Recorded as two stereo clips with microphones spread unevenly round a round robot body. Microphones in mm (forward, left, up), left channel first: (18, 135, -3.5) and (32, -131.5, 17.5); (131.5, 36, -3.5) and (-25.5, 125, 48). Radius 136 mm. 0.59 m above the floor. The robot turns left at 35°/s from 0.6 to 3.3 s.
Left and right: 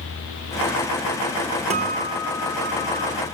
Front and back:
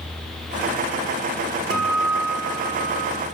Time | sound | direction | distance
1.7 | a guitar | 155° right | 0.7 m